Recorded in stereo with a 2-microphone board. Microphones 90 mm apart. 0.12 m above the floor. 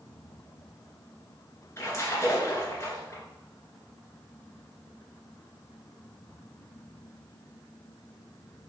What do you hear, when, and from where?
1.8 s a splash: 30° left (ahead or behind), 1.8 m